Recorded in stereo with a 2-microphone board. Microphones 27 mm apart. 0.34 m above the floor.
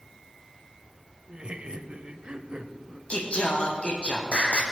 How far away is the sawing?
I don't hear sawing.